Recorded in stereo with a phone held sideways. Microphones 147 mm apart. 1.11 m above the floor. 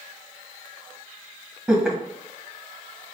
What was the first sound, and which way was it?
Laughter, 5° right (ahead or behind).